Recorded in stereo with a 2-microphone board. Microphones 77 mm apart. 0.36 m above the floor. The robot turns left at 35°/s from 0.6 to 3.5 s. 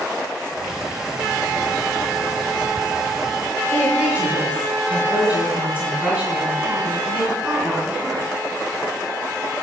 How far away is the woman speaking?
About 3 m.